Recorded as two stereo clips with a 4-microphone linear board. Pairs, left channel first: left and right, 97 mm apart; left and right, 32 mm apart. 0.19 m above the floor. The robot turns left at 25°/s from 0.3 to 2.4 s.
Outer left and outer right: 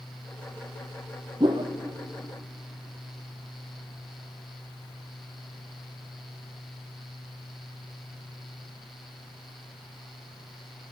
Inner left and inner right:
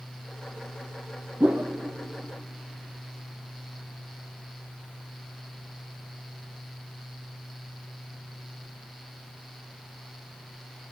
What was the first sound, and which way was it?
A whoosh, 55° right (ahead or behind).